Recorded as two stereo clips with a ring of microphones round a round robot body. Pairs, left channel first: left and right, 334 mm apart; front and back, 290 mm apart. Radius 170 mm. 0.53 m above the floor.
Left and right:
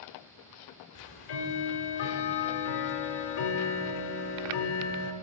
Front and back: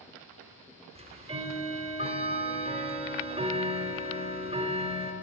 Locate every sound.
0.9 s ticking: 110° left, 0.6 m